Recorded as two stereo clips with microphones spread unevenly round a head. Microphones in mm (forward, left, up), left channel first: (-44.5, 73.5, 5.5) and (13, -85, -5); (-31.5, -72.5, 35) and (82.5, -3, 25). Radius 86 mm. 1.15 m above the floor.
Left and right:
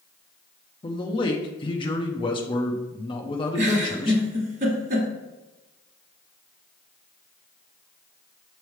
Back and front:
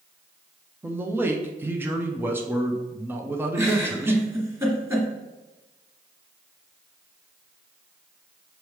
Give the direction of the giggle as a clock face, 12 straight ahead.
1 o'clock.